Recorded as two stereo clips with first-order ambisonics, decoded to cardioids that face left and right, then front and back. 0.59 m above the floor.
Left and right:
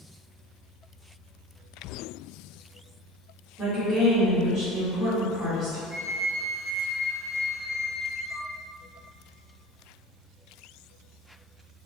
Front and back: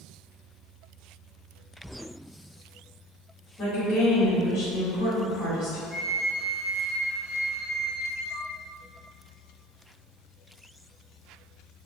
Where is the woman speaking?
20° right, 1.8 m.